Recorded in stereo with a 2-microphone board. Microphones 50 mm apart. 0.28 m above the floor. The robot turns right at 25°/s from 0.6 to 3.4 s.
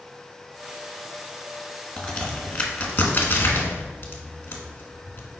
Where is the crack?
10° left (ahead or behind), 1.0 m; by 5.4 s 45° left (ahead or behind), 1.0 m.